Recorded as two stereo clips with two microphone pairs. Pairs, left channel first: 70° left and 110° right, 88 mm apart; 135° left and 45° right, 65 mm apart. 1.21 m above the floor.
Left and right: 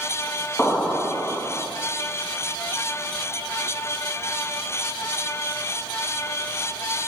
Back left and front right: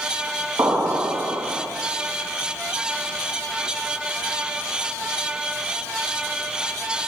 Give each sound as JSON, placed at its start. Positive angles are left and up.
{"t": 0.6, "sound": "an explosion", "azimuth_deg": -20, "distance_m": 1.4}